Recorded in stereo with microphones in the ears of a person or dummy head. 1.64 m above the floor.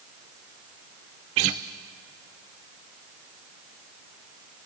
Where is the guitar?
25° right (ahead or behind), 0.6 m.